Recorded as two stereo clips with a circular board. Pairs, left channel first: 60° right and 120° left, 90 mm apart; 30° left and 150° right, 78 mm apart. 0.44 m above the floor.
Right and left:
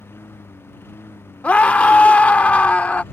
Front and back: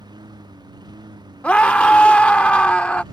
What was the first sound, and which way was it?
A lawn mower, 125° right.